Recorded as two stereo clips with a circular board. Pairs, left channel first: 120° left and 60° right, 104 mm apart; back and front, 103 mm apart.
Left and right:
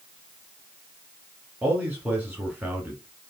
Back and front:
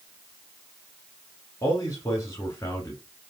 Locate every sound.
1.6 s a man speaking: 130° right, 1.5 m